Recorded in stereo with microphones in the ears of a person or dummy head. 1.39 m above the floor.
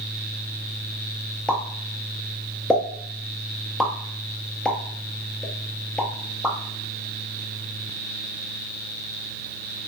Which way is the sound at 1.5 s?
5° left (ahead or behind).